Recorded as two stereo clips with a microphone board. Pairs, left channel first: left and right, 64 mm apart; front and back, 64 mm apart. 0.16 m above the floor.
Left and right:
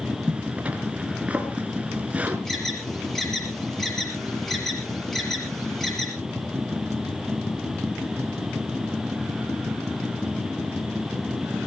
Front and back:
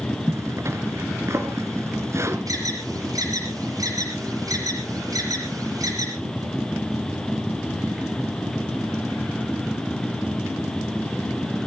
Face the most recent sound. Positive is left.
turn(degrees=175)